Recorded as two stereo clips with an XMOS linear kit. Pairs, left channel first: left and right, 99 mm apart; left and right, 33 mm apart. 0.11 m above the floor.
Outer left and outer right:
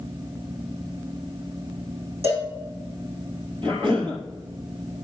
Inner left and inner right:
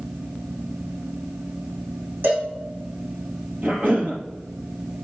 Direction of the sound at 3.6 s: 60° right (ahead or behind).